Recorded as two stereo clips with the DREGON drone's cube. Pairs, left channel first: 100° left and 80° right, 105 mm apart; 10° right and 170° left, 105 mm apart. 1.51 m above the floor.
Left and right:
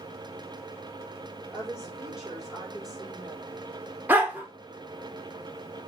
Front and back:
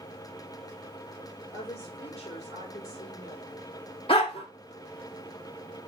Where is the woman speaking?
5° left, 3.5 m.